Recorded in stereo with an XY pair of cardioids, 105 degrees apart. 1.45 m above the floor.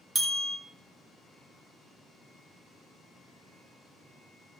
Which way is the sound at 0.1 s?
40° right.